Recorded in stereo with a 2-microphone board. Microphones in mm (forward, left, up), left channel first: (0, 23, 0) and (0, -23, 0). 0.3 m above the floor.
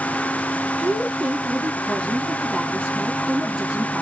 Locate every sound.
0.8 s a woman speaking: 5° left (ahead or behind), 6 m